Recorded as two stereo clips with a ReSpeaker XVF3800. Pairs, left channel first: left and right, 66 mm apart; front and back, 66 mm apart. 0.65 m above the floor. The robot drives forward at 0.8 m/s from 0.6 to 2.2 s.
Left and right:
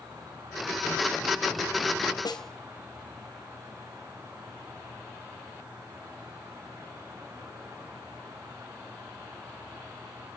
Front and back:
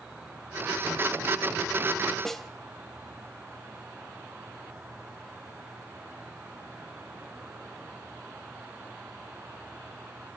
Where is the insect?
105° right, 5.5 m; by 10.4 s 115° right, 6 m.